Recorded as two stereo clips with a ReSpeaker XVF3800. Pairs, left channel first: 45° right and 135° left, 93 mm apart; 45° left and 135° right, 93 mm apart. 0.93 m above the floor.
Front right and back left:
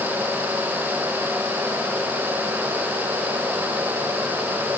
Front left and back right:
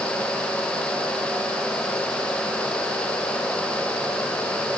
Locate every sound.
Only background noise.